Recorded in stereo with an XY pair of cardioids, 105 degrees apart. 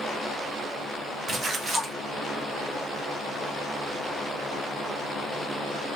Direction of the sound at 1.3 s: 50° right.